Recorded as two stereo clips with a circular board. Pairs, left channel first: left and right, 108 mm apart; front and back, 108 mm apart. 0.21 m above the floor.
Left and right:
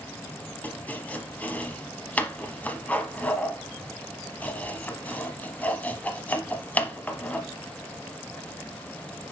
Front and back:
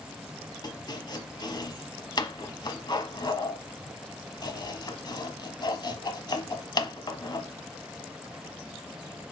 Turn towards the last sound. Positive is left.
turn(degrees=20)